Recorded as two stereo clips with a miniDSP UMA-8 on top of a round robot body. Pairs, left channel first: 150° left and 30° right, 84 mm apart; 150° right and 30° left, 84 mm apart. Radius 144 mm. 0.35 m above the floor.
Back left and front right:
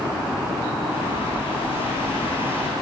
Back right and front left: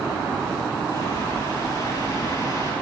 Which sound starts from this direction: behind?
A bird, at 0.9 s.